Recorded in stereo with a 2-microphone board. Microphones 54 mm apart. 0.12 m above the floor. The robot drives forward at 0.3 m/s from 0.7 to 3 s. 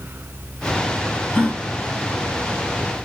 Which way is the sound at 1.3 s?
25° left (ahead or behind).